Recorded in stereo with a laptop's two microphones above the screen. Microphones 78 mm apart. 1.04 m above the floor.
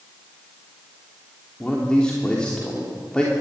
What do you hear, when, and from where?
1.6 s a man speaking: 15° left (ahead or behind), 3 m